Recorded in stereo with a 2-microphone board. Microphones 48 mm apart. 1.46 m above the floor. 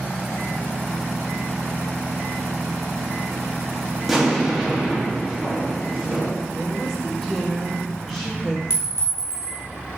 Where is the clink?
65° left (ahead or behind), 3 m.